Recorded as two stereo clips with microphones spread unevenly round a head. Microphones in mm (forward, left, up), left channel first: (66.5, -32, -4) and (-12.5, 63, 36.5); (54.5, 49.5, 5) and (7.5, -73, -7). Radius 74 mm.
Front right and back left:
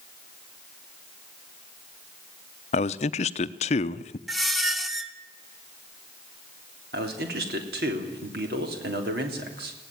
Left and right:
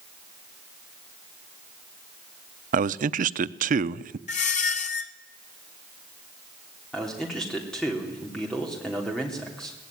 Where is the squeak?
45° left, 1.2 m.